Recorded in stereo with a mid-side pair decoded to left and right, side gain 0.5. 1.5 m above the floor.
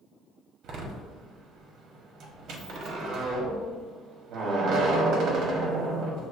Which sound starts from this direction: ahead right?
A door slam, at 0.6 s.